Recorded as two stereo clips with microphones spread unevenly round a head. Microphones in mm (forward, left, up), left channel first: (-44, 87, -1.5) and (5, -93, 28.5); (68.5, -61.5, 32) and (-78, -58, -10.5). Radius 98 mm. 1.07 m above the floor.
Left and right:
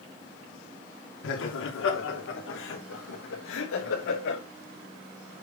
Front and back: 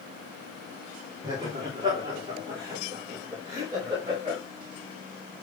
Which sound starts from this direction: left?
Laughter, at 1.2 s.